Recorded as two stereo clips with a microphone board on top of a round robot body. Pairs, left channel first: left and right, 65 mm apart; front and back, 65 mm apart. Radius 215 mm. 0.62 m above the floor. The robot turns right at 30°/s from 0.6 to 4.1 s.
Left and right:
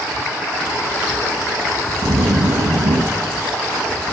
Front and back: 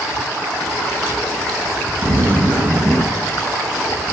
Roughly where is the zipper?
Behind right.